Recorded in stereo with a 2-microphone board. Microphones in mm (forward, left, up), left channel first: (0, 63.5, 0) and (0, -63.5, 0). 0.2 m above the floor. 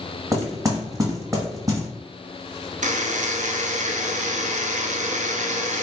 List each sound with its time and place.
0.3 s knocking: 25° right (ahead or behind), 1.3 m
2.8 s a buzzer: 75° right (ahead or behind), 0.6 m